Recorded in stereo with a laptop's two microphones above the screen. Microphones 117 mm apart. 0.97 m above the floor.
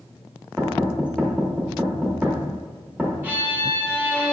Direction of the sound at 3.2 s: 15° right (ahead or behind).